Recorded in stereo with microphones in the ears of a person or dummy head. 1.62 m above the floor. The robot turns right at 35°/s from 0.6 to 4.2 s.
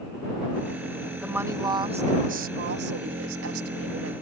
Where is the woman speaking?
175° right; by 4.2 s 70° right.